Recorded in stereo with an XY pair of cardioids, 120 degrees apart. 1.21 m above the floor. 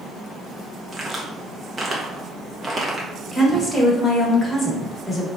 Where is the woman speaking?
10° left, 1.2 m.